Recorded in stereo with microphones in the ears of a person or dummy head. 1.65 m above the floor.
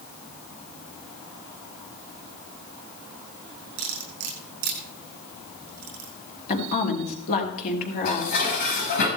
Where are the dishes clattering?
60° left (ahead or behind), 6 m.